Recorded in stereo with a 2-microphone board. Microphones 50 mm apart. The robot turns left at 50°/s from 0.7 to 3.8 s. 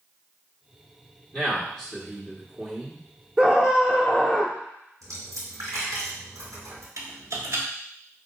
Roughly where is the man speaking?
Centre.